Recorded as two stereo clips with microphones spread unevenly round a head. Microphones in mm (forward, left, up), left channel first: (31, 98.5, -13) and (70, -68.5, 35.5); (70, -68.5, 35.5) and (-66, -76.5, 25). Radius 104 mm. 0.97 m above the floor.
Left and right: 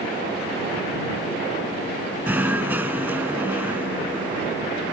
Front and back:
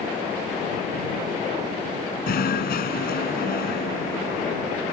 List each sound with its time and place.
2.3 s knocking: straight ahead